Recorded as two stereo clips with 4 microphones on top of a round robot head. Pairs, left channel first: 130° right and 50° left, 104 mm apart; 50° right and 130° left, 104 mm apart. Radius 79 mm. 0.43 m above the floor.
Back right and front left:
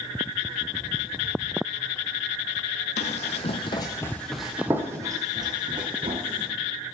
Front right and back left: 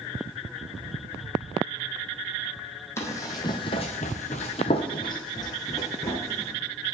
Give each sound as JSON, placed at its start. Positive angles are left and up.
{"t": 3.0, "sound": "running footsteps", "azimuth_deg": -115, "distance_m": 1.0}